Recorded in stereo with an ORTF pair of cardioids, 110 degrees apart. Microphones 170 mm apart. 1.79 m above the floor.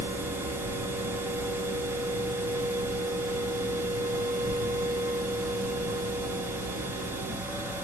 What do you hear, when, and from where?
0.0 s a machine running: 10° right, 1.2 m